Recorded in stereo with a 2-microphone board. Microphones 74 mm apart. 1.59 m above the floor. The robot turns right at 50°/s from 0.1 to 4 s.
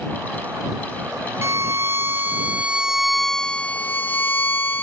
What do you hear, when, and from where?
1.4 s a violin: 90° right; by 4.8 s 40° left